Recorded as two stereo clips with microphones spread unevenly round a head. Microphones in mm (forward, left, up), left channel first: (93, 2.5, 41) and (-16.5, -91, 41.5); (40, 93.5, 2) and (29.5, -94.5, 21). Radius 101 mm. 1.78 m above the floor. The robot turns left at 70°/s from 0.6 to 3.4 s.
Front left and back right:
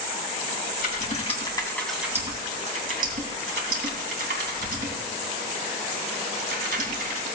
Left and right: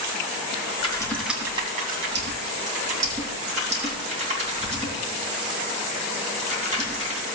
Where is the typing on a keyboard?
30° left, 3 m; by 7.2 s 155° right, 3 m.